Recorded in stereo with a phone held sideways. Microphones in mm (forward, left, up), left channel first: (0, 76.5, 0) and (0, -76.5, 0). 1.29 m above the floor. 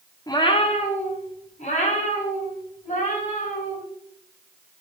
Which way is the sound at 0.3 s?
25° left (ahead or behind).